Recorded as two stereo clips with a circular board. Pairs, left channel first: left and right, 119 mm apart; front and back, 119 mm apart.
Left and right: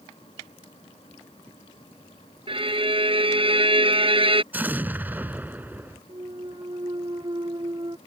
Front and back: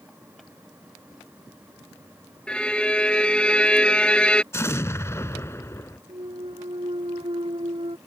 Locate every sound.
2.5 s a violin: 80° right
4.5 s an explosion: 35° right
6.1 s a clunk: 140° right